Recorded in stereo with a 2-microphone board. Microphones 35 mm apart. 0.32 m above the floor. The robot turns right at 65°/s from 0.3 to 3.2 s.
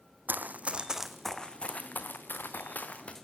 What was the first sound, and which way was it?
Running footsteps, 70° right (ahead or behind).